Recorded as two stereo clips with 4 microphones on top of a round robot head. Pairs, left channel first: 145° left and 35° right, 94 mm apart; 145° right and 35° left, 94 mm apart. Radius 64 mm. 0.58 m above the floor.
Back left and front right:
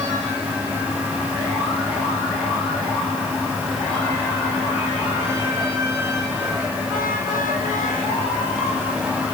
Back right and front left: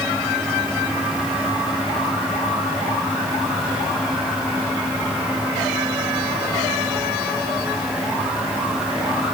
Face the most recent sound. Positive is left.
No sound to turn to.